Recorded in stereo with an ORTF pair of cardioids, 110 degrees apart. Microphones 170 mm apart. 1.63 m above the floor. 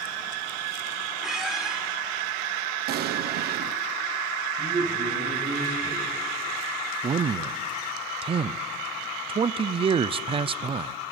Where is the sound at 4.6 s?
30° right, 8 m.